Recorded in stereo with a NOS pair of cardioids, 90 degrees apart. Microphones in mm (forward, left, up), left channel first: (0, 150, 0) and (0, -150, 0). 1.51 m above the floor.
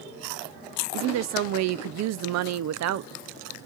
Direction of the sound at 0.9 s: 60° right.